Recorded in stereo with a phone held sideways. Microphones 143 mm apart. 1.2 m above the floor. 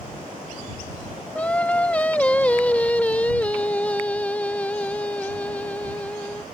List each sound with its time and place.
1.4 s singing: 10° left (ahead or behind)